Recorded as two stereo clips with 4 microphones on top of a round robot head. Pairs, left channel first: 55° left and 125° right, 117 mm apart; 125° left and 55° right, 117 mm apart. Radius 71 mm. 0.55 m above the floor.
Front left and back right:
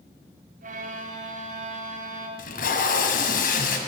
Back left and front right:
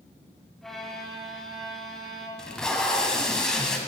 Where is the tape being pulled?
40° left, 1.4 m.